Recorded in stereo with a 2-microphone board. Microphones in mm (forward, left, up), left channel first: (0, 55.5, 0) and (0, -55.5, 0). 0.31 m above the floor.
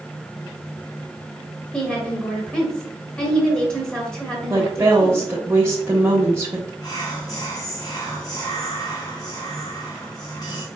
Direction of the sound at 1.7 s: 5° left (ahead or behind).